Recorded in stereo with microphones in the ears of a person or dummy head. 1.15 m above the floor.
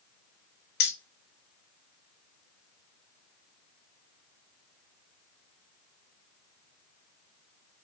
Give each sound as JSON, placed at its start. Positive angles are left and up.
{"t": 0.8, "sound": "keys jangling", "side_deg": 55, "distance_m": 0.7}